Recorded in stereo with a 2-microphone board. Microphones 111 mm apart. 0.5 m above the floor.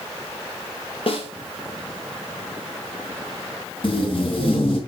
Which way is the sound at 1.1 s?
55° left (ahead or behind).